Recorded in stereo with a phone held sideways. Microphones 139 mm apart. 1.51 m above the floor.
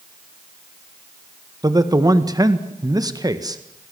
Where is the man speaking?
25° right (ahead or behind), 1.7 m.